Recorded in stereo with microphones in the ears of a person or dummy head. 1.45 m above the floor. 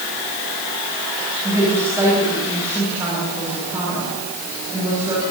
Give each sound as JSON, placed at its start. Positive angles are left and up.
{"t": 1.4, "sound": "a woman speaking", "side_deg": -15, "distance_m": 10.0}